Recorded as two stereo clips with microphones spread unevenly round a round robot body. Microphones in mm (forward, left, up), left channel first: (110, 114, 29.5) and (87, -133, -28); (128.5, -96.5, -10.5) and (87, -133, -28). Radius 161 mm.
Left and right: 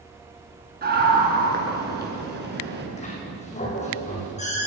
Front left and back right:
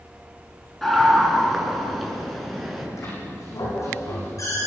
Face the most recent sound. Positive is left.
turn(degrees=25)